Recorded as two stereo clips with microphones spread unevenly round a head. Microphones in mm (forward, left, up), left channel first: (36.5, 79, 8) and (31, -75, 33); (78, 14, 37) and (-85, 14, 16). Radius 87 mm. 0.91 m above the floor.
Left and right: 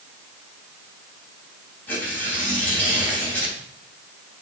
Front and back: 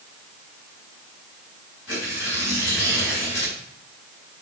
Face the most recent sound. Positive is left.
turn(degrees=10)